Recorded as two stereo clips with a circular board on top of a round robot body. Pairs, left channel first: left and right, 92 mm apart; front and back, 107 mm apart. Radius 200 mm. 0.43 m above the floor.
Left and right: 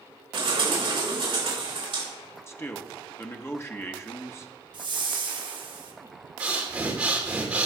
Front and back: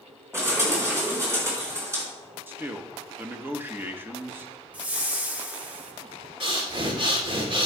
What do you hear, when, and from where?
0.3 s a bird: 120° right, 5 m
2.5 s a man speaking: 125° left, 1.2 m
4.7 s a whoosh: 105° right, 1.3 m
6.4 s breathing: 165° right, 2.5 m